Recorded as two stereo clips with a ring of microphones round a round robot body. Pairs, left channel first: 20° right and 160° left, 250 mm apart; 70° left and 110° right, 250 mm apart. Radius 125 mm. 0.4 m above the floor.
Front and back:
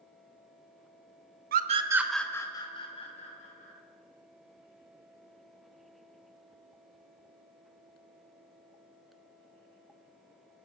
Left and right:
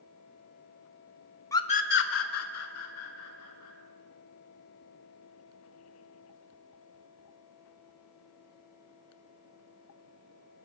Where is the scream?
140° left, 0.9 m; by 3.7 s 40° left, 3 m.